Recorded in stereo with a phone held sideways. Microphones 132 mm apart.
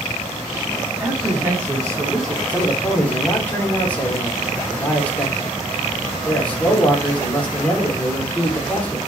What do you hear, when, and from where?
1.0 s a man speaking: 10° right (ahead or behind), 3 m; by 2.4 s 30° right (ahead or behind), 3 m
2.5 s a man speaking: 10° left (ahead or behind), 3.5 m